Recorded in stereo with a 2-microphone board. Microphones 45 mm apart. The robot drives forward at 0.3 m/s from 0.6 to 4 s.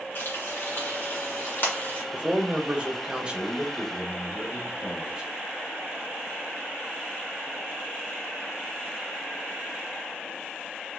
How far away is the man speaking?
About 0.8 m.